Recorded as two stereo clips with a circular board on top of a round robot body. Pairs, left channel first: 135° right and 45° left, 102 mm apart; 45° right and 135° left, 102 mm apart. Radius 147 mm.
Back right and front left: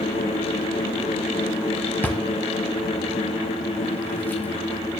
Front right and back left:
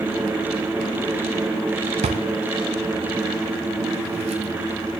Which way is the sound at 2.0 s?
150° left.